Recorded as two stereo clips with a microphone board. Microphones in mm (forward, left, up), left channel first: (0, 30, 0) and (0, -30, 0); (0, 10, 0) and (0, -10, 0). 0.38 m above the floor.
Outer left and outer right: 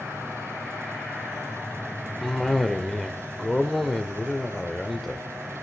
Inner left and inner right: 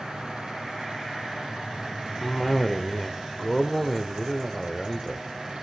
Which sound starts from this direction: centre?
A cough, at 2.2 s.